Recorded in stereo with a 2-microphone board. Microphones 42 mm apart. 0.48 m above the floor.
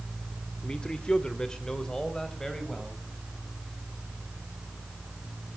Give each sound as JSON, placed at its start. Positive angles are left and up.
{"t": 0.6, "sound": "a man speaking", "side_deg": 25, "distance_m": 1.1}